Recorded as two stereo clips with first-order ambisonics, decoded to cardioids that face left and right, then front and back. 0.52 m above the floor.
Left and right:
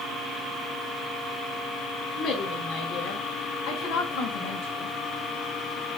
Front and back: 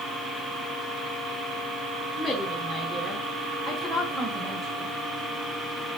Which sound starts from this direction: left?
A woman speaking, at 2.2 s.